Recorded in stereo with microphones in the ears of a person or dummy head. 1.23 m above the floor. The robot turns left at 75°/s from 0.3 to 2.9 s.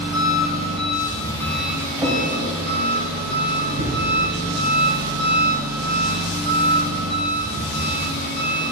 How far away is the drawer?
About 2.5 m.